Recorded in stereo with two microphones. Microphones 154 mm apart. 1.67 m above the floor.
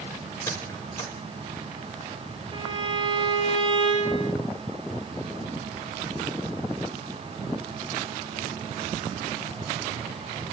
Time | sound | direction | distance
0.5 | a squeak | 20° left (ahead or behind) | 5.5 m
2.5 | a violin | 40° right (ahead or behind) | 4.5 m